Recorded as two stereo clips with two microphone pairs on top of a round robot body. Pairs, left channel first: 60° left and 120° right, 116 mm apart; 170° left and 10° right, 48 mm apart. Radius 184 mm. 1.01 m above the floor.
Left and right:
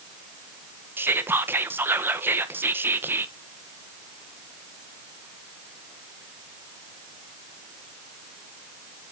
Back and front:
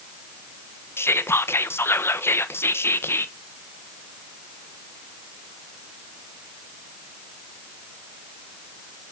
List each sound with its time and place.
1.0 s whispering: 170° left, 1.4 m